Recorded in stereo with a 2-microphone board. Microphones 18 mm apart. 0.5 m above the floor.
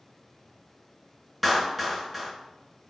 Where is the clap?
10° right (ahead or behind), 4.5 m.